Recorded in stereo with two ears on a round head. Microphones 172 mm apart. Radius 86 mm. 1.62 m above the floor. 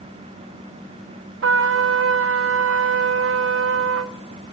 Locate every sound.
1.4 s a trumpet: 70° right (ahead or behind), 0.7 m